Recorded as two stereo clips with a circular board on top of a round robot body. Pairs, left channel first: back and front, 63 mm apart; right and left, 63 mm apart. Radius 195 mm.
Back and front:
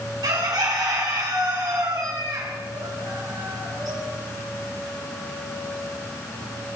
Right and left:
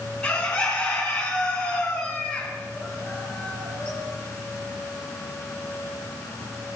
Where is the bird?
20° right, 3 m.